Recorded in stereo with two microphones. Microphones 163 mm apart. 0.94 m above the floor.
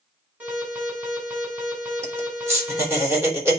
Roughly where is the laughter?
Centre.